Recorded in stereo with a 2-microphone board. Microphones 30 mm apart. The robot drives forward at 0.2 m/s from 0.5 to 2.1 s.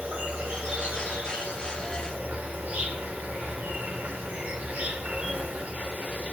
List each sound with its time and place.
0.0 s an insect: 65° right (ahead or behind), 1.0 m; by 6.3 s 60° right (ahead or behind), 1.1 m